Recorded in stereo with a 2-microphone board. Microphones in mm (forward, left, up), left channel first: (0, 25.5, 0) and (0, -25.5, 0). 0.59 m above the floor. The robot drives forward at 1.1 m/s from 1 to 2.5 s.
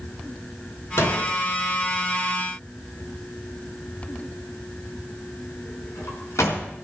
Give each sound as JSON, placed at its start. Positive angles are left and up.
{"t": 1.0, "sound": "a door slam", "side_deg": 65, "distance_m": 4.5}